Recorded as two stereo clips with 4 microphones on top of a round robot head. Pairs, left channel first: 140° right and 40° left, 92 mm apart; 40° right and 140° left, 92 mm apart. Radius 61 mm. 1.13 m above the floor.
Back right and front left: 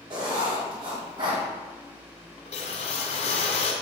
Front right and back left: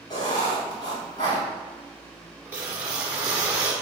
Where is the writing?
5° left, 2.5 m.